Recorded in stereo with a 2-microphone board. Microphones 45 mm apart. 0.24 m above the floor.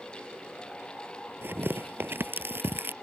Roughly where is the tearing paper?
Right.